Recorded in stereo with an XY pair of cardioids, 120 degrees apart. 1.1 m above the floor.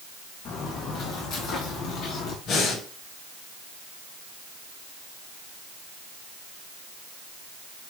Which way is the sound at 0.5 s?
65° left.